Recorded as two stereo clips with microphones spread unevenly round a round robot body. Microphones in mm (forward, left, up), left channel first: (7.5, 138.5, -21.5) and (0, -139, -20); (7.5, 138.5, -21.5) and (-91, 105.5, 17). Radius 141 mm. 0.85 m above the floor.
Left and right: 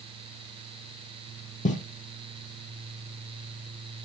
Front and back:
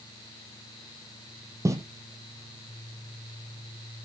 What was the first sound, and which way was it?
Footsteps, 150° left.